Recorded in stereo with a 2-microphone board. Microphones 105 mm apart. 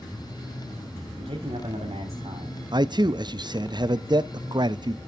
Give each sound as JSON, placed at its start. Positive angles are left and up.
{"t": 1.2, "sound": "a man speaking", "side_deg": -65, "distance_m": 2.5}
{"t": 2.7, "sound": "a man speaking", "side_deg": -40, "distance_m": 0.5}